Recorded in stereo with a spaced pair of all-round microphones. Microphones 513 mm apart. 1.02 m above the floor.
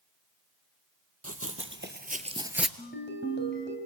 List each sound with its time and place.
1.2 s running footsteps: 30° right (ahead or behind), 2 m; by 2.7 s centre (ahead or behind), 1.2 m
2.8 s a ringtone: 20° left (ahead or behind), 3.5 m